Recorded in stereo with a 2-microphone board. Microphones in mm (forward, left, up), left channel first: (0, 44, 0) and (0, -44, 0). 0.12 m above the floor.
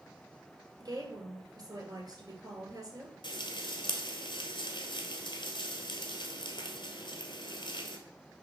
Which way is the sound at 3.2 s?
60° left (ahead or behind).